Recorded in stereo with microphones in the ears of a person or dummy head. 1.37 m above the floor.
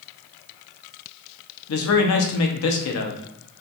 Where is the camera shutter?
I don't hear a camera shutter.